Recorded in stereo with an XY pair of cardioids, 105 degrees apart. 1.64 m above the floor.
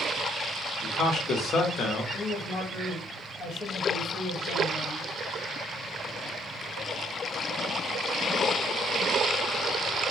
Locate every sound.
0.8 s a man speaking: 65° left, 0.9 m
2.1 s a man speaking: 65° left, 1.2 m